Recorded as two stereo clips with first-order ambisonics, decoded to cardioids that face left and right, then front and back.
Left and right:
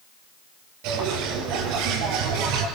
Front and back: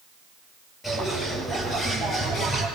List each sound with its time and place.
0.8 s a bird: 75° right, 4 m